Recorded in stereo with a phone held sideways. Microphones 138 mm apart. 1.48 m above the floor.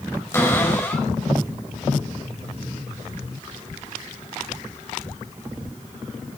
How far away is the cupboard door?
About 5.5 m.